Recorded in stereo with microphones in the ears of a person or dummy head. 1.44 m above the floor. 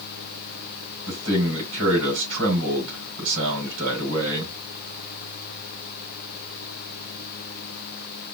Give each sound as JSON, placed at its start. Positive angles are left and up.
{"t": 1.1, "sound": "a man speaking", "side_deg": -70, "distance_m": 3.5}